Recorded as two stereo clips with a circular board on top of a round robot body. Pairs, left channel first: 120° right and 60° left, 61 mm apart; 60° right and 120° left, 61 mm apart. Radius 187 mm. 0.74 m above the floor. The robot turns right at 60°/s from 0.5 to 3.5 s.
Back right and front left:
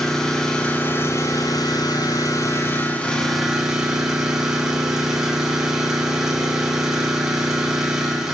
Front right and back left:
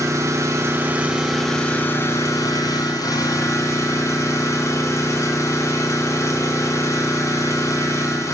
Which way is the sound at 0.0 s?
155° left.